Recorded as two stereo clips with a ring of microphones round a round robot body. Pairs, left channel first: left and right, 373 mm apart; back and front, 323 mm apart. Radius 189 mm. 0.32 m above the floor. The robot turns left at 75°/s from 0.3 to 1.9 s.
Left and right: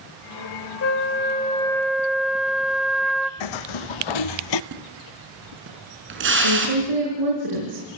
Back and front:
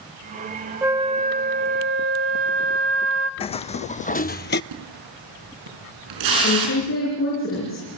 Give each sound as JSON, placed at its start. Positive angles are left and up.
{"t": 0.8, "sound": "a flute", "azimuth_deg": 80, "distance_m": 1.0}
{"t": 3.4, "sound": "footsteps", "azimuth_deg": 105, "distance_m": 1.4}
{"t": 4.7, "sound": "a splash", "azimuth_deg": -30, "distance_m": 5.0}
{"t": 6.4, "sound": "a woman speaking", "azimuth_deg": -120, "distance_m": 6.0}